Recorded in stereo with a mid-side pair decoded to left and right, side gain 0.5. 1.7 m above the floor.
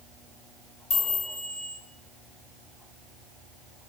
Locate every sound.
0.9 s a chime: 50° left, 1.6 m